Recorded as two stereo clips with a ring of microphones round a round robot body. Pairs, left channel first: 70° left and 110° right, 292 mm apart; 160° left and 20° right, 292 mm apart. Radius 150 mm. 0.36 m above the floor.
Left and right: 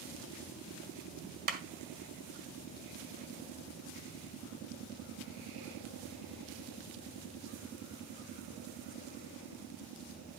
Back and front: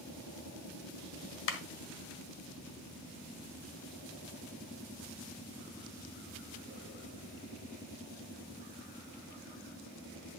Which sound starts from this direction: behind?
A clap, at 1.5 s.